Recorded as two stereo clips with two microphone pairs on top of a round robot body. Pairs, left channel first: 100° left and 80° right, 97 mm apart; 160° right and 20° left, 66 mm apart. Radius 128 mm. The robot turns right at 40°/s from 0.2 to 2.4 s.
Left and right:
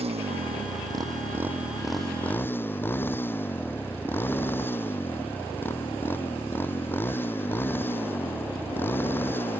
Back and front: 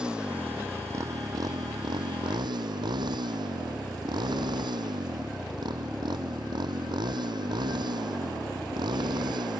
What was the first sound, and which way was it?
A motorcycle, 60° right.